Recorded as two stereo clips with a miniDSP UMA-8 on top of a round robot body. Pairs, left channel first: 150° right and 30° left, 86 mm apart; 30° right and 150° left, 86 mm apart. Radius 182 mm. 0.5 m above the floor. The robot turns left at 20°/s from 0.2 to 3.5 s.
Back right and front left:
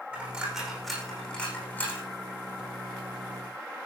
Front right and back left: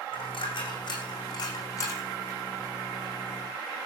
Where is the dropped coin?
45° right, 7 m; by 2.1 s 85° right, 7 m.